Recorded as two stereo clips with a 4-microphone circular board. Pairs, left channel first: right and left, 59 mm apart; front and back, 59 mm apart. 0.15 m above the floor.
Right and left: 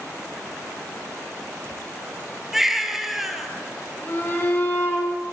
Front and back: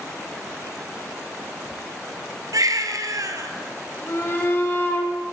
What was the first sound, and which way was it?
A baby crying, 175° left.